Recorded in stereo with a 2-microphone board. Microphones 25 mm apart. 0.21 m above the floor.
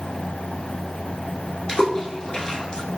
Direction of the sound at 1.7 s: 30° left (ahead or behind).